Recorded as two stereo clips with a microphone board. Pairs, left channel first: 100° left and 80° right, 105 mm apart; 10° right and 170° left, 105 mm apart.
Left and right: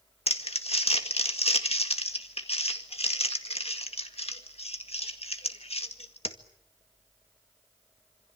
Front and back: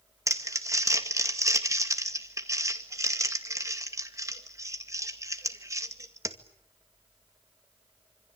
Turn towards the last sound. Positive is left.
turn(degrees=110)